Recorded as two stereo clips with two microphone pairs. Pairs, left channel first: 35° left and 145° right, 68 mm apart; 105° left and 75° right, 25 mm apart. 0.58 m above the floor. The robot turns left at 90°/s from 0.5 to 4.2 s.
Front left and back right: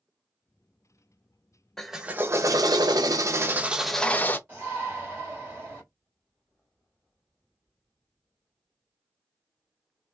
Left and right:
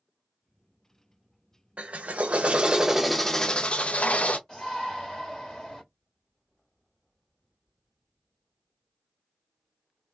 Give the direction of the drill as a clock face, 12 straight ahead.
1 o'clock.